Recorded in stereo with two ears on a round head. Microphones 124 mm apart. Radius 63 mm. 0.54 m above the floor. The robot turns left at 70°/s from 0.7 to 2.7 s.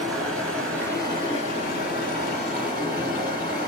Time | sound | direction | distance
0.0 | running water | 175° left | 1.3 m